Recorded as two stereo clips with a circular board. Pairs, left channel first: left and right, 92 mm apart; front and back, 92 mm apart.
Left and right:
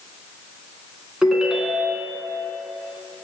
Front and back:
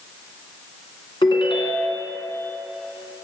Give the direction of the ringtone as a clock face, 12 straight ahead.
12 o'clock.